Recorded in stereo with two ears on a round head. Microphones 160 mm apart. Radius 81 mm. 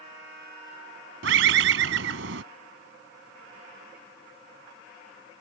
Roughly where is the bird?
Right.